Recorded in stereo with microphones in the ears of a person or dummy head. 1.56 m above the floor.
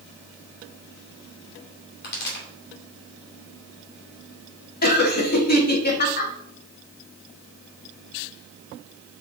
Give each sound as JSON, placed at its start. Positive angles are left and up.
{"t": 2.0, "sound": "a pop", "side_deg": 65, "distance_m": 3.0}
{"t": 4.8, "sound": "laughter", "side_deg": 50, "distance_m": 1.4}